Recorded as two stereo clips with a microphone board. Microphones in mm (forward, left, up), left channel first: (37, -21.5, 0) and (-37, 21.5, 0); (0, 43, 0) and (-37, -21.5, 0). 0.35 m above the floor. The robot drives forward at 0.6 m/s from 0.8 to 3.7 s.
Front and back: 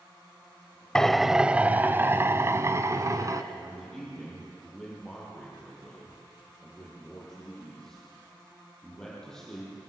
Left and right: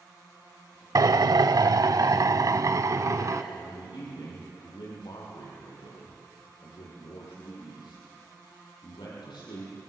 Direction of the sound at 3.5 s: 50° left.